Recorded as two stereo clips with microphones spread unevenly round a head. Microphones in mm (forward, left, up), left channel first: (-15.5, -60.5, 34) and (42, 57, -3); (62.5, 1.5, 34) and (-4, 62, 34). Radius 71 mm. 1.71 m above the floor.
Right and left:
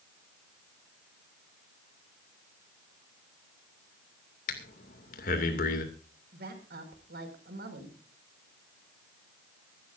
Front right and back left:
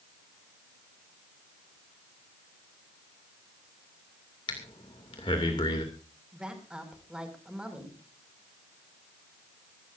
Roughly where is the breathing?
Right.